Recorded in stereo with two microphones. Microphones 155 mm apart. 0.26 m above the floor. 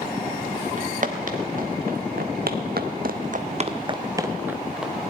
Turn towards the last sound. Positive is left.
turn(degrees=-5)  # may be behind; listen again after turning